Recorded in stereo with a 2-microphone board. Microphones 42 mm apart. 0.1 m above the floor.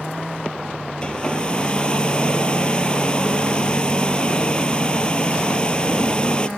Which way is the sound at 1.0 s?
20° left (ahead or behind).